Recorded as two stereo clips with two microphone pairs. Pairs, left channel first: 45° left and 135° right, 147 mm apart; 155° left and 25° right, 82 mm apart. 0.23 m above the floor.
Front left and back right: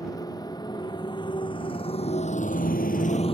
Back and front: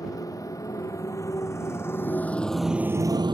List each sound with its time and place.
0.0 s a motorcycle: 110° left; by 3.3 s 5° right